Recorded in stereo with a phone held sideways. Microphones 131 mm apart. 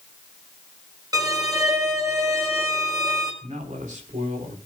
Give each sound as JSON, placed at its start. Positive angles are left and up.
{"t": 1.1, "sound": "a violin", "side_deg": -30, "distance_m": 4.0}
{"t": 3.4, "sound": "a man speaking", "side_deg": -80, "distance_m": 4.0}